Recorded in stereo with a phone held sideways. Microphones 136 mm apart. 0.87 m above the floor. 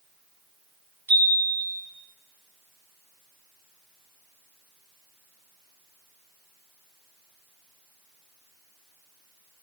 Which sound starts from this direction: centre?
A chime, at 1.1 s.